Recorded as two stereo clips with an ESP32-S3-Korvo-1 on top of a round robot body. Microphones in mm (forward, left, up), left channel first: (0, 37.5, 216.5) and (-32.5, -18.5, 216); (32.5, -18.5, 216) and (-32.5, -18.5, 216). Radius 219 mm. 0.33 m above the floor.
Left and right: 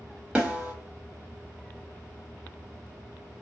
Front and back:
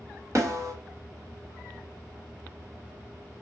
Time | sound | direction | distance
0.3 | a snare drum | 175° left | 1.8 m